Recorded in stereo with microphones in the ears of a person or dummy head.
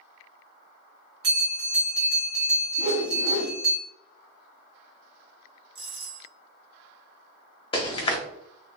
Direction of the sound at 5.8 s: 25° right (ahead or behind).